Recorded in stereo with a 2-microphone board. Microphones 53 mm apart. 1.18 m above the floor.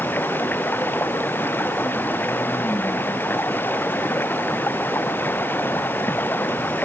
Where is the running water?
40° left (ahead or behind).